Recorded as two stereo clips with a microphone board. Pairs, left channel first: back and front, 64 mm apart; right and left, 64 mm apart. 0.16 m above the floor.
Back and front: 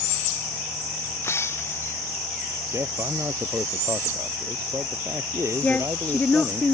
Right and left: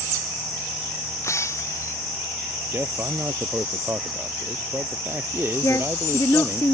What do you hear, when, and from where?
1.2 s breaking glass: 130° right
2.7 s a man speaking: 40° left
5.6 s a woman speaking: 115° right